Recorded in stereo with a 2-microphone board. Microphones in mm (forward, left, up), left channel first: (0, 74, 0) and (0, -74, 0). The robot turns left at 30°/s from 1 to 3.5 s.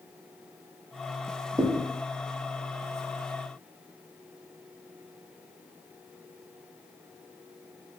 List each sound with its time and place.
1.6 s a thud: 35° right (ahead or behind), 0.5 m; by 1.8 s 40° right (ahead or behind), 0.5 m